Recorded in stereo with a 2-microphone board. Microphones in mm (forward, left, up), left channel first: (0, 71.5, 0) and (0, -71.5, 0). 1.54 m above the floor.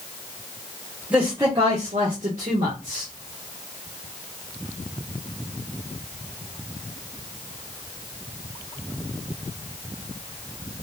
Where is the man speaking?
10° right (ahead or behind), 1.3 m; by 3.1 s 55° right (ahead or behind), 2 m.